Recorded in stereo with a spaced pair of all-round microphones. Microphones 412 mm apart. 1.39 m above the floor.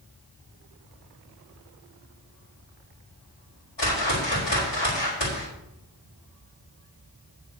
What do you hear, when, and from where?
3.8 s a whoosh: 80° left, 4.5 m